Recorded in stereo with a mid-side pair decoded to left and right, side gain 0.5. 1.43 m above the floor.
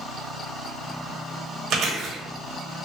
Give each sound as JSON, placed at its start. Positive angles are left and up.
{"t": 1.7, "sound": "chewing", "azimuth_deg": -70, "distance_m": 1.0}